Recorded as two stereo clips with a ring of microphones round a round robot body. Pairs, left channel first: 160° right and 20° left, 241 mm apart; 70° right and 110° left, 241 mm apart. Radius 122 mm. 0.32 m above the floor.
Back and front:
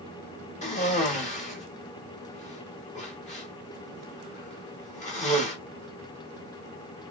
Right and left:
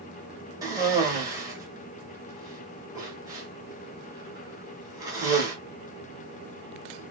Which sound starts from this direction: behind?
A cough, at 0.6 s.